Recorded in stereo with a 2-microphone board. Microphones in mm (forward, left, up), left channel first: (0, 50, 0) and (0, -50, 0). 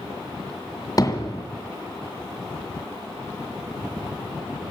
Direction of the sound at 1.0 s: 40° left (ahead or behind).